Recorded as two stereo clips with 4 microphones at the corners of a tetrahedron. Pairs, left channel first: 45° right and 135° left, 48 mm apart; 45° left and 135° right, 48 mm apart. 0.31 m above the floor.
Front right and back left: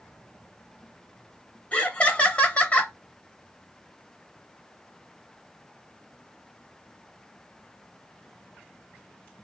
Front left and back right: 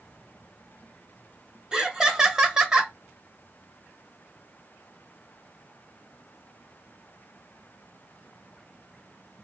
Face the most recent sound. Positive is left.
turn(degrees=-75)